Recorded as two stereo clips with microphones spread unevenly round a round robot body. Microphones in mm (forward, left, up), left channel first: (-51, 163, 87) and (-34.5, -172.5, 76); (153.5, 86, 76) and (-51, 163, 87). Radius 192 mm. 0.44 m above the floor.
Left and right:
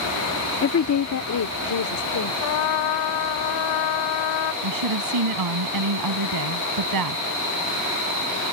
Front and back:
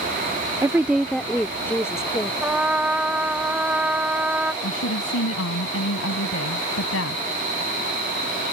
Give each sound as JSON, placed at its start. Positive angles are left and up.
{"t": 0.6, "sound": "a woman speaking", "azimuth_deg": 90}
{"t": 2.4, "sound": "a trumpet", "azimuth_deg": 75}
{"t": 4.6, "sound": "a woman speaking", "azimuth_deg": -55}